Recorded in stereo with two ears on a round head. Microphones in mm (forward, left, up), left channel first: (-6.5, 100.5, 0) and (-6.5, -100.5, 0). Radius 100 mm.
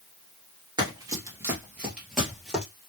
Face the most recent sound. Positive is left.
turn(degrees=5)  # may be behind; listen again after turning